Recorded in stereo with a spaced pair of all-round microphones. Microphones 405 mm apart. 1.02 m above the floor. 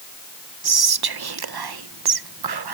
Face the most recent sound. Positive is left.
turn(degrees=-65)  # may be behind; listen again after turning